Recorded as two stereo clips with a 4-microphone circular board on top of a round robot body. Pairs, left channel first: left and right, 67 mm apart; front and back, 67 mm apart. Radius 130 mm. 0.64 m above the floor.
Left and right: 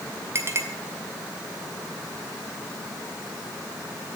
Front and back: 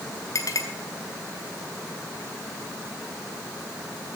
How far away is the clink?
About 2.0 m.